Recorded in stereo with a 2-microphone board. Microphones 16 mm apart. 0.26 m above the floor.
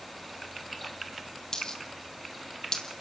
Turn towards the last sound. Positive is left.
turn(degrees=40)  # may be behind; listen again after turning